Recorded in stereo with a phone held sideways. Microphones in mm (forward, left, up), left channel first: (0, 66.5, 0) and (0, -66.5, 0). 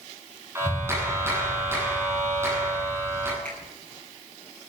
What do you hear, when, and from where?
0.6 s a clap: 20° right (ahead or behind), 8.5 m
3.5 s a finger snap: 10° left (ahead or behind), 10 m